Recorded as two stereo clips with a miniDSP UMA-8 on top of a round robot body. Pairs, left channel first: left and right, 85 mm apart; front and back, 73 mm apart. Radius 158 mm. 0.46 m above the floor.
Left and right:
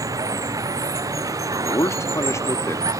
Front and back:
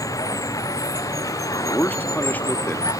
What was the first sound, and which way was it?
Running water, 40° right.